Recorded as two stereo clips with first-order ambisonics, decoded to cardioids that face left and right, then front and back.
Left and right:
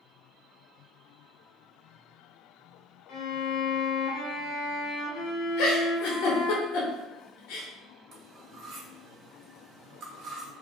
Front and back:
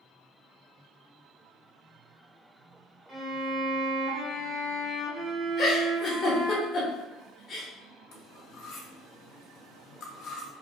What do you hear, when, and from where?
3.1 s a violin: 115° left, 0.7 m
5.6 s a giggle: 65° left, 0.8 m
8.1 s cutlery clinking: 35° right, 0.8 m